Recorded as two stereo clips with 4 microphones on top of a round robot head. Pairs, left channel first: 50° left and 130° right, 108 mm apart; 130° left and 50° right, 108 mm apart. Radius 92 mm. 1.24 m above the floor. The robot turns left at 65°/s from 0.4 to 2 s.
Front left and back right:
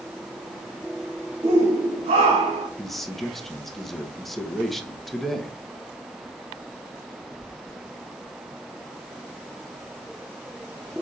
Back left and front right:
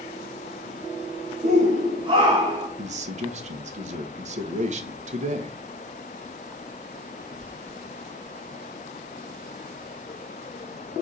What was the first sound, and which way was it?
A shout, 65° right.